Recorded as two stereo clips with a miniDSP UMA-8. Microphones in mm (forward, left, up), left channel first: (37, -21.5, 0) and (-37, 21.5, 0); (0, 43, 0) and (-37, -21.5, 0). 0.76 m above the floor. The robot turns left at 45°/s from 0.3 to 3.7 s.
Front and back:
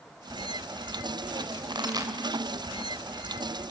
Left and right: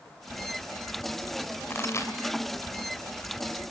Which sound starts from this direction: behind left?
A pop, at 1.7 s.